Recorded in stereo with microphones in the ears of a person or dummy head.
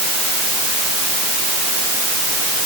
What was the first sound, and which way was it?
Only background noise.